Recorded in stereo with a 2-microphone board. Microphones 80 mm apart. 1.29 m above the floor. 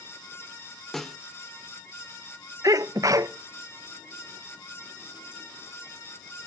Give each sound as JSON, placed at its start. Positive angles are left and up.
{"t": 0.9, "sound": "a snare drum", "side_deg": 0, "distance_m": 1.0}
{"t": 2.6, "sound": "a sneeze", "side_deg": -45, "distance_m": 1.0}